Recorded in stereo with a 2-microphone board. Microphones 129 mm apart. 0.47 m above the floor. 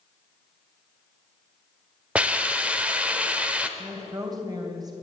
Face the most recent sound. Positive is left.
turn(degrees=-30)  # may be behind; listen again after turning